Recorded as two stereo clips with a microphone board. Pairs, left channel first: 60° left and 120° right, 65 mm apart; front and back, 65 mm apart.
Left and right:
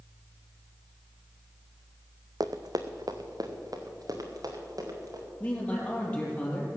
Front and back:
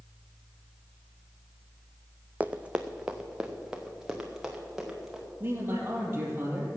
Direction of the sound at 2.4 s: 115° right.